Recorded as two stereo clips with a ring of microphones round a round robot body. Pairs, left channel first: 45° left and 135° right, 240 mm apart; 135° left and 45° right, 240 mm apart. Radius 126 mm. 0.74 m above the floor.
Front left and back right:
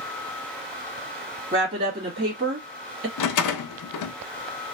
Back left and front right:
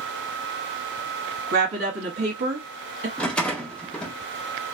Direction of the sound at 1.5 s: 80° right.